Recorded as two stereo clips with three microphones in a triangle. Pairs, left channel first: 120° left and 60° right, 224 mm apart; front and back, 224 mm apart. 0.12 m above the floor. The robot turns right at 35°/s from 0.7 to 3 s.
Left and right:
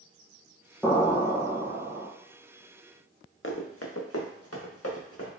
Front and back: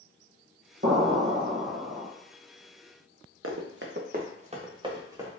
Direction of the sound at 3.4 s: 155° left.